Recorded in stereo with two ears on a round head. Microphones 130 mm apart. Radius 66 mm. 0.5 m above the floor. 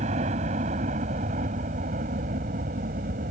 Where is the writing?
I don't hear writing.